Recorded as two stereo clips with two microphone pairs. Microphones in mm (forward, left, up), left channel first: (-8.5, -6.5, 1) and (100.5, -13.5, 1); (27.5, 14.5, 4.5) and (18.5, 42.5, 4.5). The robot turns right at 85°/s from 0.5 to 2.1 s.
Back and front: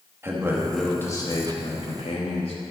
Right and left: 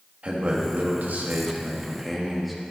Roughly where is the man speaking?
Ahead left.